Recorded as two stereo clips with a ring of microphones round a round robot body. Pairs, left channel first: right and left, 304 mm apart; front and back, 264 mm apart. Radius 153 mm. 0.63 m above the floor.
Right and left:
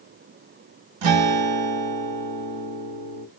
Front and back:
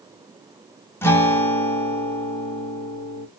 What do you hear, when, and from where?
1.0 s a guitar: 80° left, 0.8 m